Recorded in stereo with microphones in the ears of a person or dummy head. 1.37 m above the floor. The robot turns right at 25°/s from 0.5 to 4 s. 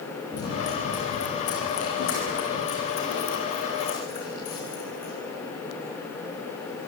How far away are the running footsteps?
About 7 m.